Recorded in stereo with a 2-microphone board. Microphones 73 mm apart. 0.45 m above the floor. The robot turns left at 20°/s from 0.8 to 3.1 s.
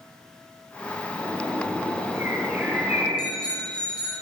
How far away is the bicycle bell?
About 9.5 m.